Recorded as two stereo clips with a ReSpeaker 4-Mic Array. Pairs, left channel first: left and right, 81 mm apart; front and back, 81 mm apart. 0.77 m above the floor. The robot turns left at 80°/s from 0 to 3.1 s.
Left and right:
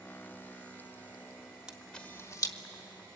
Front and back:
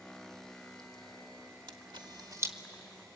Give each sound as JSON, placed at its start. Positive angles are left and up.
{"t": 1.7, "sound": "a camera shutter", "azimuth_deg": -170, "distance_m": 1.5}